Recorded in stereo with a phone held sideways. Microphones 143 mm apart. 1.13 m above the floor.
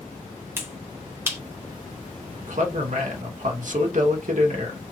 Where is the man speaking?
60° right (ahead or behind), 0.9 m.